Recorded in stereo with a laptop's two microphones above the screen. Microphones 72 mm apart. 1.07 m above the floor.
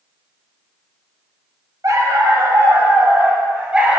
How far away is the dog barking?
About 1.1 m.